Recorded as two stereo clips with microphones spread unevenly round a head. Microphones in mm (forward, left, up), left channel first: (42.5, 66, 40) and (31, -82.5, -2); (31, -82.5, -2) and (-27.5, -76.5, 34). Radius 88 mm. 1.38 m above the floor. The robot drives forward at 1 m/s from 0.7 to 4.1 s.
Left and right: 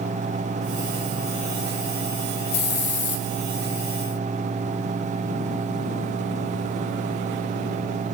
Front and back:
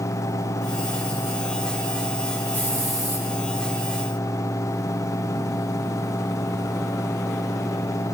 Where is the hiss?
70° left, 1.4 m; by 3.2 s 100° left, 1.4 m.